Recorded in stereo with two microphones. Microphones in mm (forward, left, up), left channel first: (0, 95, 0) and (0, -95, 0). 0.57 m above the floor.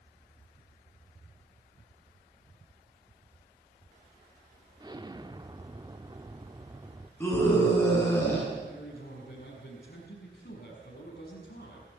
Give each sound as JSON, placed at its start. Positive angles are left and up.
{"t": 4.8, "sound": "an explosion", "side_deg": -25, "distance_m": 1.0}
{"t": 7.2, "sound": "a scream", "side_deg": 10, "distance_m": 7.5}
{"t": 8.6, "sound": "a man speaking", "side_deg": 55, "distance_m": 6.0}